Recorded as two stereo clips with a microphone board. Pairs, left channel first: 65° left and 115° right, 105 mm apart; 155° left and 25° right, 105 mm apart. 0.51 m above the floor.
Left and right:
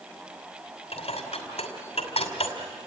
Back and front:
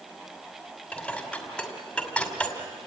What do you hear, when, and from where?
0.9 s dishes clattering: 75° left, 2.5 m